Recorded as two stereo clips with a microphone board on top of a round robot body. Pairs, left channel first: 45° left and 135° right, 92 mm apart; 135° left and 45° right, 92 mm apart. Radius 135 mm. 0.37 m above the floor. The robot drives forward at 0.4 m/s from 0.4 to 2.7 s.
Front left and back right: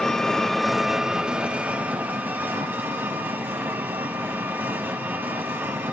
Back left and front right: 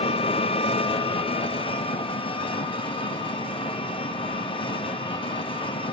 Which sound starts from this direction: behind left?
An engine running, at 0.0 s.